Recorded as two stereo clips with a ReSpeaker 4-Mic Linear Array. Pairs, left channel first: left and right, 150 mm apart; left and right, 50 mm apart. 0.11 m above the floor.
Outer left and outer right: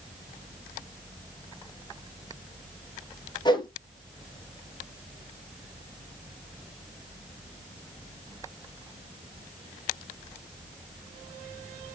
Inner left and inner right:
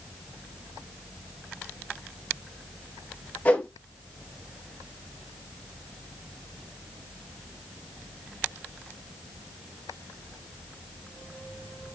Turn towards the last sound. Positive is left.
turn(degrees=30)  # may be behind; listen again after turning